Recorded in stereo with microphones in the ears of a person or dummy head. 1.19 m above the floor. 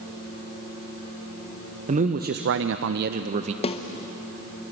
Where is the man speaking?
35° right (ahead or behind), 1.1 m; by 3.5 s 30° right (ahead or behind), 1.0 m.